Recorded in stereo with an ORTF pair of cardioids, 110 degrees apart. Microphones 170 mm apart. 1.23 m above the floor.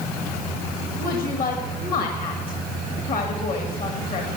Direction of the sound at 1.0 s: 60° left.